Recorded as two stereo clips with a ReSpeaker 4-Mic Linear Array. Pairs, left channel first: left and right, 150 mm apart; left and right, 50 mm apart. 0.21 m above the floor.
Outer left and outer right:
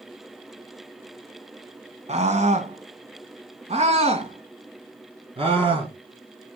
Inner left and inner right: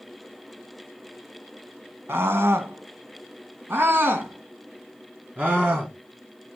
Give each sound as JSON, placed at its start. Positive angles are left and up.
{"t": 2.1, "sound": "a scream", "side_deg": -50, "distance_m": 1.4}